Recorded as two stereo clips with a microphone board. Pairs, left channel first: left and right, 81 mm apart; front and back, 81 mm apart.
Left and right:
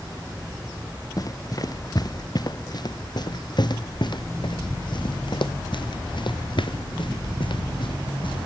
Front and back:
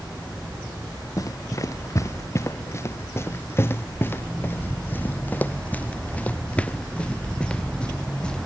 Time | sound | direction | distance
1.2 | running footsteps | 45° left | ?